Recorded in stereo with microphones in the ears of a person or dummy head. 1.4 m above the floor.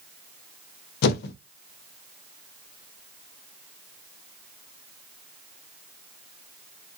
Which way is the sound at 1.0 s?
55° left (ahead or behind).